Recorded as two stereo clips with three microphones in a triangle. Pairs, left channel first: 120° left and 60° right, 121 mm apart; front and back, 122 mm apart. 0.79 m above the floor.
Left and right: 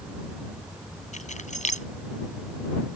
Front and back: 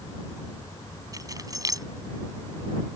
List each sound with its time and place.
1.1 s keys jangling: 120° left